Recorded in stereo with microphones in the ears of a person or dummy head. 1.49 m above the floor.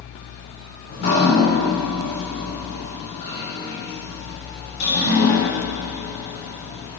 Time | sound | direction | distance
0.9 | dripping | 55° left (ahead or behind) | 4.5 m